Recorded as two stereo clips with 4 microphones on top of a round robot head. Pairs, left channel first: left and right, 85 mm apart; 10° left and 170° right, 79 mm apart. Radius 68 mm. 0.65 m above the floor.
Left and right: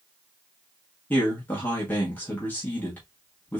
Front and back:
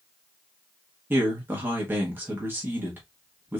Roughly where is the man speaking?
Behind left.